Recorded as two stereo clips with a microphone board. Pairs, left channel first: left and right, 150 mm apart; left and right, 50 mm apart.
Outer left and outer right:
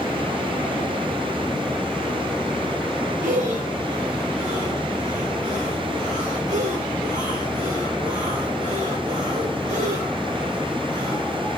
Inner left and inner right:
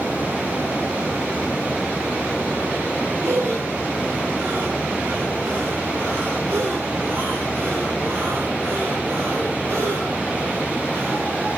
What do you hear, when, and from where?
3.2 s breathing: 55° right (ahead or behind), 1.2 m